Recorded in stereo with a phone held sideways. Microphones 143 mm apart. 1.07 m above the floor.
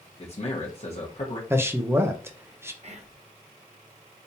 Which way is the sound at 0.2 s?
50° left (ahead or behind).